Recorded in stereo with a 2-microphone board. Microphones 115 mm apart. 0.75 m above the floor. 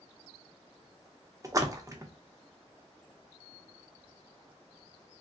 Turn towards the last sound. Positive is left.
turn(degrees=-30)  # may be behind; listen again after turning